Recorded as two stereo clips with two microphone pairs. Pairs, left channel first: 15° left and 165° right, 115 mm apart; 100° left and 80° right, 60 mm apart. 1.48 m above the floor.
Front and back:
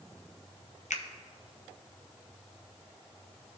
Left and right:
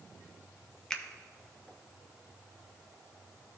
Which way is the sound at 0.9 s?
25° left.